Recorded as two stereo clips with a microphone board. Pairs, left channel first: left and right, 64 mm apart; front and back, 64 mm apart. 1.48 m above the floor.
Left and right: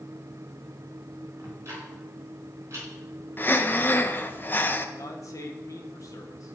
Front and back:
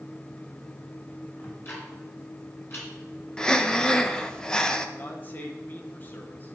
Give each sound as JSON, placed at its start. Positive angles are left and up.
{"t": 1.4, "sound": "ticking", "azimuth_deg": -50, "distance_m": 4.0}
{"t": 3.4, "sound": "breathing", "azimuth_deg": 70, "distance_m": 0.6}
{"t": 5.0, "sound": "a man speaking", "azimuth_deg": 60, "distance_m": 1.4}